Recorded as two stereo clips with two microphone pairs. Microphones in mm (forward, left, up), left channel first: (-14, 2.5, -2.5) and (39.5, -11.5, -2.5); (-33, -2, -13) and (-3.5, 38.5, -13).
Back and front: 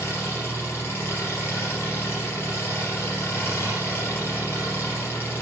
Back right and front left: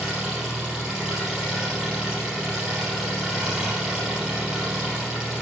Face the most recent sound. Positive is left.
turn(degrees=125)